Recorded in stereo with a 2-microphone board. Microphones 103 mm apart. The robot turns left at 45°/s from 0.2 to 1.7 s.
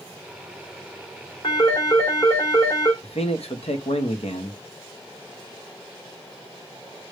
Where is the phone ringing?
50° left (ahead or behind), 2.5 m; by 2.9 s 35° left (ahead or behind), 2.5 m.